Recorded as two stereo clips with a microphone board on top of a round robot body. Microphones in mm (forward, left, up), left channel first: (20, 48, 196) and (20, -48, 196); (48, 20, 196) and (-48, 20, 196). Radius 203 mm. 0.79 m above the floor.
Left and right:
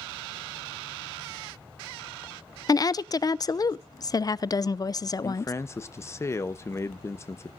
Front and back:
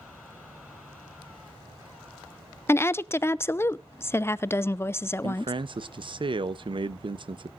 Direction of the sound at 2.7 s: 55° left.